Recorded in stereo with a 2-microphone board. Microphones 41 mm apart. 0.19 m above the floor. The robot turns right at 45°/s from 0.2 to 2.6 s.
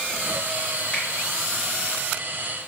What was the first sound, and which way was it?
A finger snap, 25° left (ahead or behind).